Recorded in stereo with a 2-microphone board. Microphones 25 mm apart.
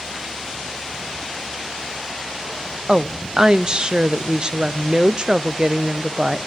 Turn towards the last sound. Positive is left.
turn(degrees=-35)  # may be behind; listen again after turning